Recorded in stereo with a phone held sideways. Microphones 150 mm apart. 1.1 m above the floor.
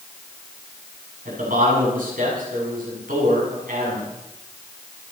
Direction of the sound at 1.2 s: 70° right (ahead or behind).